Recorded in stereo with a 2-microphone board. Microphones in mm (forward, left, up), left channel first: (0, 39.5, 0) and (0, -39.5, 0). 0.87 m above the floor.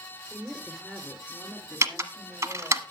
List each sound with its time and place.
0.3 s a woman speaking: 10° right (ahead or behind), 4 m; by 2.8 s 20° right (ahead or behind), 1.9 m
1.8 s typing on a keyboard: 40° right (ahead or behind), 1.1 m